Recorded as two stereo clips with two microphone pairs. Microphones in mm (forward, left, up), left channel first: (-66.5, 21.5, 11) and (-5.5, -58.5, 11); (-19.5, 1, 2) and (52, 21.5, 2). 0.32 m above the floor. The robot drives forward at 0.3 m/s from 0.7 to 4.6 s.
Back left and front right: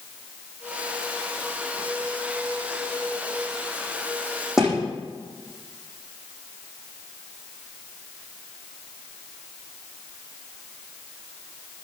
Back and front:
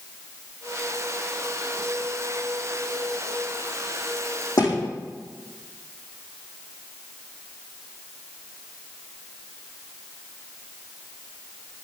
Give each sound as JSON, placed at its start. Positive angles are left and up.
{"t": 4.6, "sound": "a thud", "azimuth_deg": -140, "distance_m": 8.5}